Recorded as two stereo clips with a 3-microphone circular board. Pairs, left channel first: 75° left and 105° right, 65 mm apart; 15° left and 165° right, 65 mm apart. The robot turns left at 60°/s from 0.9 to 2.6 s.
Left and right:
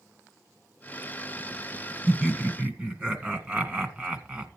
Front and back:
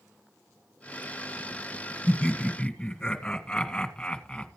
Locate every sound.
2.1 s laughter: 15° right, 1.7 m; by 4.5 s 50° right, 1.7 m